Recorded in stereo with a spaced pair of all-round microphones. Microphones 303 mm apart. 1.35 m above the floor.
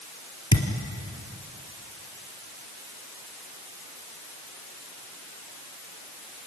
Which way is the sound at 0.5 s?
60° left (ahead or behind).